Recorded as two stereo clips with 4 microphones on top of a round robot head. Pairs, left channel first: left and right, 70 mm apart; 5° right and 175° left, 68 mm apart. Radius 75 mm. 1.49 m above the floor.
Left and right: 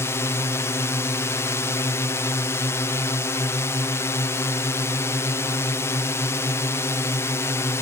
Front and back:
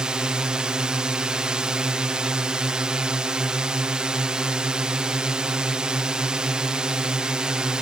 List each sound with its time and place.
0.0 s a drone: 105° left